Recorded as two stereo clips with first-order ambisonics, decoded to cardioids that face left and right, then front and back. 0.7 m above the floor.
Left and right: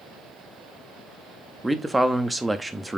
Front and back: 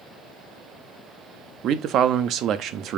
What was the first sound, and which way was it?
A man speaking, 170° right.